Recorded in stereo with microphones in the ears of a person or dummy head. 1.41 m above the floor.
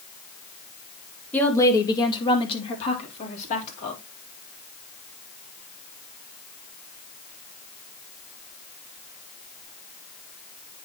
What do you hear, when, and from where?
1.3 s a woman speaking: 10° left (ahead or behind), 1.8 m; by 4.0 s 40° left (ahead or behind), 4 m